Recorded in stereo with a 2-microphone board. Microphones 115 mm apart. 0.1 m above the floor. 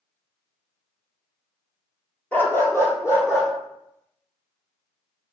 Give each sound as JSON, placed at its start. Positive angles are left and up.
{"t": 2.3, "sound": "a dog barking", "side_deg": 15, "distance_m": 0.8}